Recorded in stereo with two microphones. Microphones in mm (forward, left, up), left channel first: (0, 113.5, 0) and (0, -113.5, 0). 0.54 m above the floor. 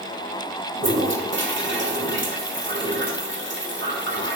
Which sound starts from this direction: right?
A toilet flushing, at 0.8 s.